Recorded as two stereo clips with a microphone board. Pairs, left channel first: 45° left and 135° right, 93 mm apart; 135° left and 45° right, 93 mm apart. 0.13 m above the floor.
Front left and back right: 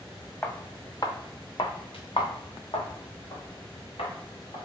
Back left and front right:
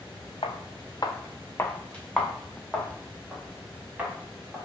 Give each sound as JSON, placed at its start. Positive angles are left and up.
{"t": 0.4, "sound": "footsteps", "azimuth_deg": 115, "distance_m": 0.8}